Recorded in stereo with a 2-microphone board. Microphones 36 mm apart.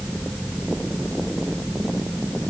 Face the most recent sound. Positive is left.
No sound to turn to.